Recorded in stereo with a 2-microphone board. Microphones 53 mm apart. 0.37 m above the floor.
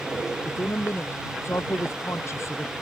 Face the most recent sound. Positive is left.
turn(degrees=60)  # may be behind; listen again after turning